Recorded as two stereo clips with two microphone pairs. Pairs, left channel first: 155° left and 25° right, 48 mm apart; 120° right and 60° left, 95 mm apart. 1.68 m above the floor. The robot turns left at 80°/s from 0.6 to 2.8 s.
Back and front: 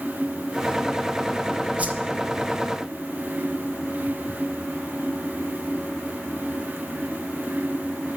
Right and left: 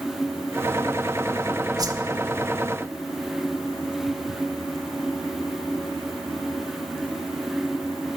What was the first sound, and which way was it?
A whoosh, 30° left.